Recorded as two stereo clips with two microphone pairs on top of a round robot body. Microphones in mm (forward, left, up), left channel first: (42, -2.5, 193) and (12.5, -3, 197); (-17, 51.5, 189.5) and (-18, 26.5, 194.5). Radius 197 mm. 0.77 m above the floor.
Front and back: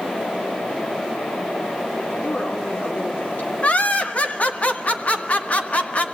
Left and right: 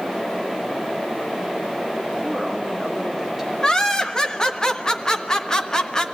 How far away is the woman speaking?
About 3.5 m.